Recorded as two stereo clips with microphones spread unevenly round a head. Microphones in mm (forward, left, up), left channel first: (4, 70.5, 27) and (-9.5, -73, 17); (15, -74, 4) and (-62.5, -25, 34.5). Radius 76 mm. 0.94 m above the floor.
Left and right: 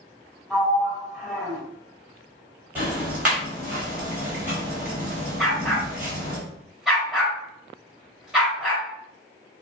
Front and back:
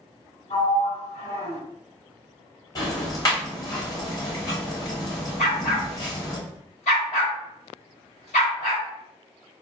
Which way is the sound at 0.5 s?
Straight ahead.